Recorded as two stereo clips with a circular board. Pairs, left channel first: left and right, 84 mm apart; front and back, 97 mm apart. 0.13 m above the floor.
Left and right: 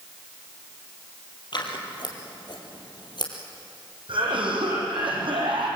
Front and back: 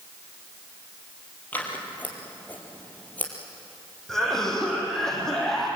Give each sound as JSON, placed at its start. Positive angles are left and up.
{"t": 1.5, "sound": "scissors", "azimuth_deg": 70, "distance_m": 3.5}
{"t": 4.1, "sound": "a cough", "azimuth_deg": -85, "distance_m": 5.5}